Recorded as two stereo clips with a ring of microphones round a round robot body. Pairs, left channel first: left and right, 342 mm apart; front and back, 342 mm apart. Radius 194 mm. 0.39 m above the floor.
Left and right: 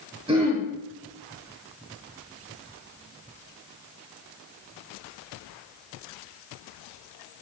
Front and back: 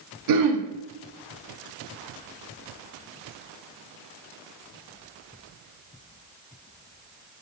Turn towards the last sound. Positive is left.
turn(degrees=-165)